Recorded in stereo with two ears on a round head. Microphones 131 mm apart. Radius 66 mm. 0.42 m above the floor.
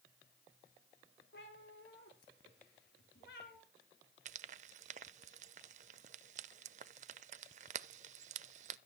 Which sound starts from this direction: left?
A cat meowing, at 1.3 s.